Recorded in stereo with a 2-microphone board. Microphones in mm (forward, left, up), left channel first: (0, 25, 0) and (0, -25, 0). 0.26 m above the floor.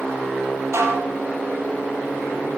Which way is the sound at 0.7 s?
65° right (ahead or behind).